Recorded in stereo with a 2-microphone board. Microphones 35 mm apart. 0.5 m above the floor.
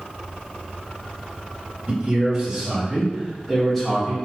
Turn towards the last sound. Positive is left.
turn(degrees=15)  # may be behind; listen again after turning